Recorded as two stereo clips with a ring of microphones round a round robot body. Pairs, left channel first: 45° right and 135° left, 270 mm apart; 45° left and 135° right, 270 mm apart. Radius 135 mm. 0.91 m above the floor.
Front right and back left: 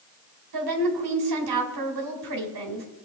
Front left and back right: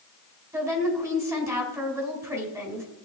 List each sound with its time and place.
0.5 s a woman speaking: 145° left, 3.5 m